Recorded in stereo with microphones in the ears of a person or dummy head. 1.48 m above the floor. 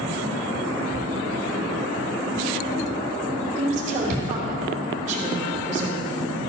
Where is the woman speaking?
40° right (ahead or behind), 3 m.